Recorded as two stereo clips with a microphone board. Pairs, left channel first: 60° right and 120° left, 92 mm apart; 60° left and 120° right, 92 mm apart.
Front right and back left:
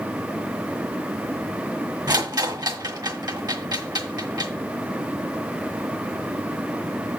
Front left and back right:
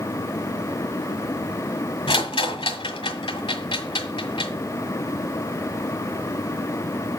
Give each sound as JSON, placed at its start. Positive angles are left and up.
{"t": 2.1, "sound": "a rattle", "azimuth_deg": 80, "distance_m": 1.7}